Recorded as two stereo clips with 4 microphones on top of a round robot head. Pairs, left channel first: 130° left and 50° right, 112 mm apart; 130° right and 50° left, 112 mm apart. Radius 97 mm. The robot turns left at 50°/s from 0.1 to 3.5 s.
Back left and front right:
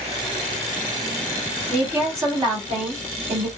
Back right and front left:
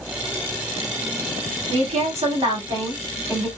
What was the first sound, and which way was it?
A woman speaking, 40° left.